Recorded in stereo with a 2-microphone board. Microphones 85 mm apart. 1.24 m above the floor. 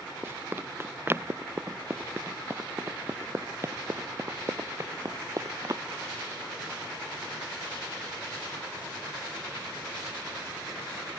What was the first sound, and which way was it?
Running footsteps, 25° right (ahead or behind).